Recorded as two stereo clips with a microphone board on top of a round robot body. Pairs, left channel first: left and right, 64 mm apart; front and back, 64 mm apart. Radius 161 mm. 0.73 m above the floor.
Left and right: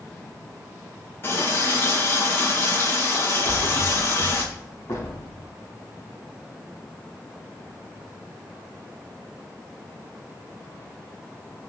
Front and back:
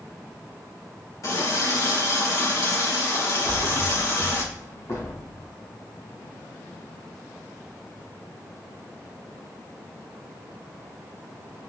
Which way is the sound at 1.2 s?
35° left.